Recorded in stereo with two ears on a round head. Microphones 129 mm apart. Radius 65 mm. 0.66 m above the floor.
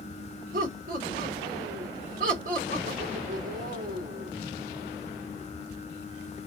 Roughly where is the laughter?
Right.